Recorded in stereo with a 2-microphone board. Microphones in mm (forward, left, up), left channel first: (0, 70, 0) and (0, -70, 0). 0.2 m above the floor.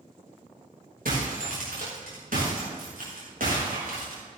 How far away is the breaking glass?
About 7 m.